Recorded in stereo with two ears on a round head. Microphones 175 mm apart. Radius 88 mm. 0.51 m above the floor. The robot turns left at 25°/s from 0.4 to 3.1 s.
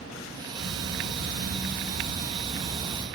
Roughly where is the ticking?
Right.